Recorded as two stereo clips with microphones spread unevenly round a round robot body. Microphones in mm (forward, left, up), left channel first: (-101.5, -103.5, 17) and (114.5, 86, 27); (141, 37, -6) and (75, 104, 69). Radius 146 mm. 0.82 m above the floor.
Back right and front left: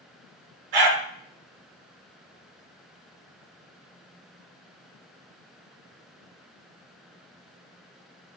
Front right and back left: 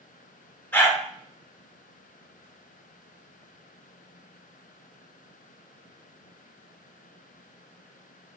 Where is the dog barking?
35° left, 3 m.